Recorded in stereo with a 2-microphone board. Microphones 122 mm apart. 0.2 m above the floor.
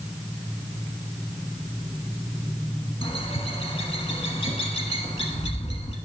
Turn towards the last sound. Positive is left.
turn(degrees=55)  # may be behind; listen again after turning